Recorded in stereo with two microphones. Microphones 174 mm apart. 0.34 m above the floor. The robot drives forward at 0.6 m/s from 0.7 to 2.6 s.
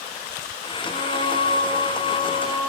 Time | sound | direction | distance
0.8 | singing | 60° left (ahead or behind) | 2.0 m